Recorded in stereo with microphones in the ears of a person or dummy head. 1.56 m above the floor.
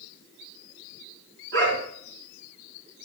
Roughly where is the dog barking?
Right.